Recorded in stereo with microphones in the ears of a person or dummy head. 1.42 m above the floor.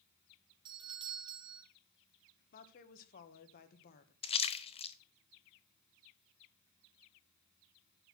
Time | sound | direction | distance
0.7 | a doorbell | 20° right (ahead or behind) | 1.2 m
2.5 | a woman speaking | 50° left (ahead or behind) | 1.4 m
4.2 | a splash | 35° left (ahead or behind) | 0.6 m